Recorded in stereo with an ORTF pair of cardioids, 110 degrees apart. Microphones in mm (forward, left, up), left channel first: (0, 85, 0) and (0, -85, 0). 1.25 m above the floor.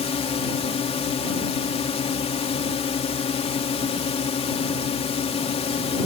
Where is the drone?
40° left.